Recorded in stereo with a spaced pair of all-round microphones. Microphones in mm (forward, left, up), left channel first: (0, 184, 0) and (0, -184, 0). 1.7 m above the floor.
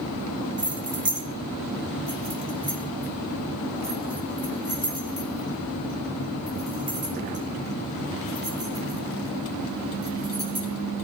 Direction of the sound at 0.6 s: 70° right (ahead or behind).